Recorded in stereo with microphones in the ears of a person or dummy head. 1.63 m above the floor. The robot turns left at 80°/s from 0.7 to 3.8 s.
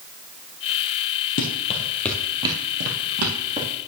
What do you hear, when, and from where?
1.4 s running footsteps: 35° left (ahead or behind), 2 m; by 3.7 s 10° right (ahead or behind), 3 m